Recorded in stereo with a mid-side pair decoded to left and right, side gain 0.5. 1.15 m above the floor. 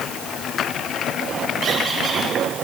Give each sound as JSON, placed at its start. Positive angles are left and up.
{"t": 1.6, "sound": "a squeak", "azimuth_deg": -70, "distance_m": 7.5}